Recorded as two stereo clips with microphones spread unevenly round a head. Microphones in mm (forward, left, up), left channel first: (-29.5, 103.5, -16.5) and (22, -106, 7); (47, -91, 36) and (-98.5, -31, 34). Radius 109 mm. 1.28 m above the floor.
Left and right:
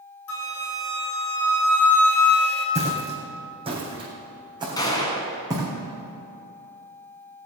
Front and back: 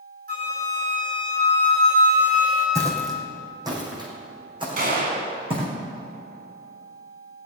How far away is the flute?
About 2.5 m.